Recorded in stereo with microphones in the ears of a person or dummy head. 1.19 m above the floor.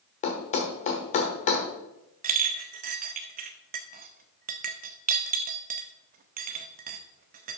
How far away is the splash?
No splash in this recording.